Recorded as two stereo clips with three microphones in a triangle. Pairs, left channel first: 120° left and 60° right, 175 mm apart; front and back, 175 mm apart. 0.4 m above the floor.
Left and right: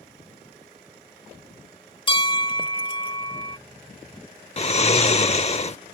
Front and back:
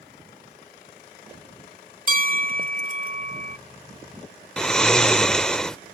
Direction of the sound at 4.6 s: 85° left.